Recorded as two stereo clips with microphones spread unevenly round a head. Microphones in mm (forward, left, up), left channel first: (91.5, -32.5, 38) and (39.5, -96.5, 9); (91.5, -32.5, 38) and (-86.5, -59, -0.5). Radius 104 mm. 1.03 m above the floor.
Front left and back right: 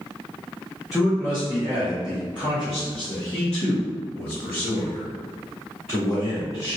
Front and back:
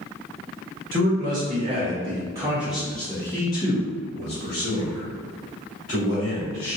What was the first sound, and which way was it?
A man speaking, 145° left.